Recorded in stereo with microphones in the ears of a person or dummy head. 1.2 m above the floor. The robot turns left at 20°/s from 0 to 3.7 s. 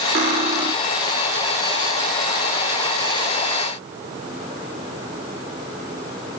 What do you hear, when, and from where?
0.1 s cutlery clinking: 35° right (ahead or behind), 0.9 m; by 0.7 s 25° right (ahead or behind), 0.9 m